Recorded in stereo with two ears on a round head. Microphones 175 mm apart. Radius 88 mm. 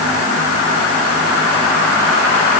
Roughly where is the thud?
No thud in this recording.